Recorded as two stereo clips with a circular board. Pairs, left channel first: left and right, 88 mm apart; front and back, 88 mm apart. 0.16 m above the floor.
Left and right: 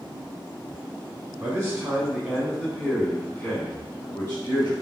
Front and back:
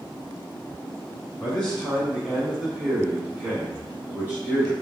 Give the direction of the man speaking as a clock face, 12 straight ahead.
2 o'clock.